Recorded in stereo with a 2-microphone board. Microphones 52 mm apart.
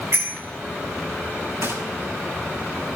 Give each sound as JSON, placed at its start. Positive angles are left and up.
{"t": 0.1, "sound": "a bicycle bell", "side_deg": -65, "distance_m": 7.0}
{"t": 1.6, "sound": "a gunshot", "side_deg": -70, "distance_m": 7.5}